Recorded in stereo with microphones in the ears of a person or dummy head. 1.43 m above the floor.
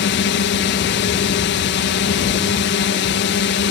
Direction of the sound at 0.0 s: 55° left (ahead or behind).